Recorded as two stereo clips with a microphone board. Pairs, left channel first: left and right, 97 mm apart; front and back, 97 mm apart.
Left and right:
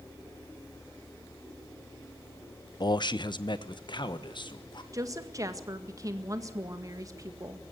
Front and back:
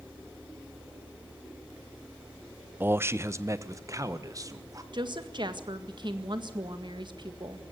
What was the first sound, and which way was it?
A man speaking, 115° left.